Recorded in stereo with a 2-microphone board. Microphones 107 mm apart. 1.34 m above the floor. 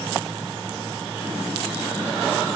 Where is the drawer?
I don't hear a drawer.